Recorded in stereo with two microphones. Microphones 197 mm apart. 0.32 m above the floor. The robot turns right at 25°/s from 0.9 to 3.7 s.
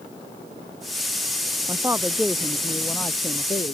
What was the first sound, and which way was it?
A woman speaking, 20° right.